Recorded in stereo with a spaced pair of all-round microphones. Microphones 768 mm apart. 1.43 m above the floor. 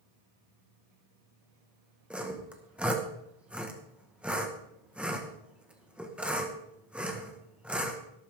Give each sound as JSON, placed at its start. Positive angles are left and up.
{"t": 2.1, "sound": "sawing", "side_deg": 0, "distance_m": 1.6}